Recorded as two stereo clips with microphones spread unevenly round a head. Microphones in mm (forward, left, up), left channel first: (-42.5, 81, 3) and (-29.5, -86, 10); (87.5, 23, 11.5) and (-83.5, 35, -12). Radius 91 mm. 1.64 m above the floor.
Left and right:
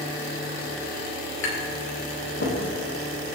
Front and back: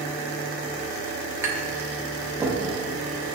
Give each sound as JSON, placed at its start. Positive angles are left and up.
{"t": 1.4, "sound": "tapping", "azimuth_deg": 100, "distance_m": 3.0}